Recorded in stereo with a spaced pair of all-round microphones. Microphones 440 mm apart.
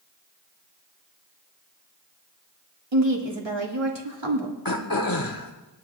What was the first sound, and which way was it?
A woman speaking, 75° right (ahead or behind).